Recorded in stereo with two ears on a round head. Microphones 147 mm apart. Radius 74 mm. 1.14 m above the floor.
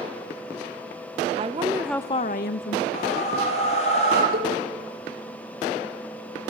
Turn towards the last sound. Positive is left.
turn(degrees=-60)  # may be behind; listen again after turning